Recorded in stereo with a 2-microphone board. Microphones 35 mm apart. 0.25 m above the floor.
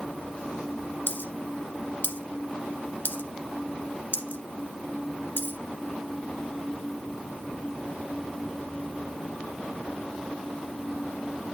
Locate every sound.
1.1 s a dropped coin: 75° left (ahead or behind), 1.4 m